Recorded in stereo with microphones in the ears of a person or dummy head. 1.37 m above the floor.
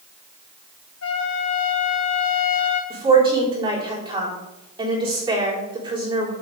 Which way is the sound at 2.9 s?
25° right (ahead or behind).